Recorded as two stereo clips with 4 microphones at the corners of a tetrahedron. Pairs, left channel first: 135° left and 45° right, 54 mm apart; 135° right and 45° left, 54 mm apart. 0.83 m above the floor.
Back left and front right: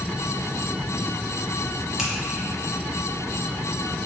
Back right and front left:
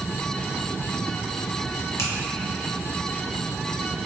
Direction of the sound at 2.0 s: 125° right.